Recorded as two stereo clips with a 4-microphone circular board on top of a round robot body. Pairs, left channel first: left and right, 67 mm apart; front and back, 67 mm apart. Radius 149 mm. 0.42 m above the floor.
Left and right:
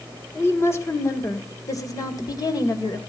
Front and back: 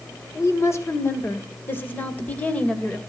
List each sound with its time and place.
0.3 s a woman speaking: 40° left, 2.5 m; by 3.0 s 75° left, 2.5 m